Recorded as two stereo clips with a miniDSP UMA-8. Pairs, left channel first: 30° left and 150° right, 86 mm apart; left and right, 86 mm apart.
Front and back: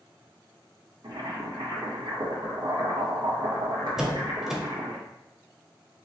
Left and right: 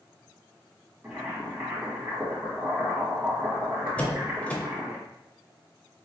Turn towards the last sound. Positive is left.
turn(degrees=135)